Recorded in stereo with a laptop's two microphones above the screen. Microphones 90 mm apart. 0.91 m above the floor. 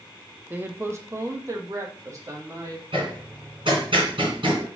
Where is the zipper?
I don't hear a zipper.